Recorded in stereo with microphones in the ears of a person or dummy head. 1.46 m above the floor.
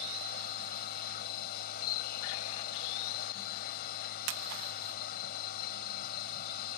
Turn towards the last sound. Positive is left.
turn(degrees=50)  # may be behind; listen again after turning